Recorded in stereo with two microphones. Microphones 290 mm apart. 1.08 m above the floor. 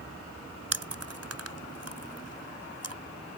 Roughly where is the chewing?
Right.